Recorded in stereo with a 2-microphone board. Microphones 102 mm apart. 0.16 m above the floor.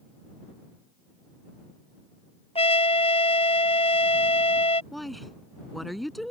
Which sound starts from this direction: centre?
A woman speaking, at 4.9 s.